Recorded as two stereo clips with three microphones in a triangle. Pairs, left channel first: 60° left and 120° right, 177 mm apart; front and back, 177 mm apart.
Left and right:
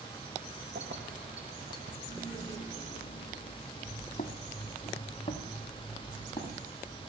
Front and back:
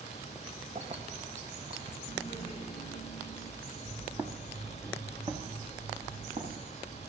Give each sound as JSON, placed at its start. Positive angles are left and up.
{"t": 0.8, "sound": "keys jangling", "azimuth_deg": -130, "distance_m": 1.7}
{"t": 2.1, "sound": "laughter", "azimuth_deg": 125, "distance_m": 8.0}
{"t": 3.9, "sound": "footsteps", "azimuth_deg": 100, "distance_m": 2.0}